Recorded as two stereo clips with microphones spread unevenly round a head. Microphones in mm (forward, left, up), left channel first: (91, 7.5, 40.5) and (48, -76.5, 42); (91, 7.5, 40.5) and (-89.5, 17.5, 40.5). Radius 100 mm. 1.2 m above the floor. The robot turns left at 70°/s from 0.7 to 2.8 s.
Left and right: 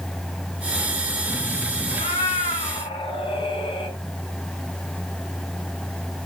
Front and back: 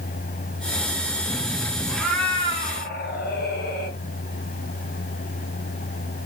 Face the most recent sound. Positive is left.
turn(degrees=35)